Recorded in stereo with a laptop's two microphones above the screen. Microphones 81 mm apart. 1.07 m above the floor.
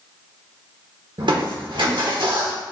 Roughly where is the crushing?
Right.